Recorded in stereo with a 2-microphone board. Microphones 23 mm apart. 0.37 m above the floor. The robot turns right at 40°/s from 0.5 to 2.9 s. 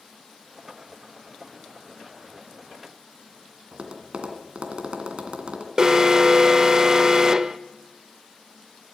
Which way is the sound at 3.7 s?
60° right (ahead or behind).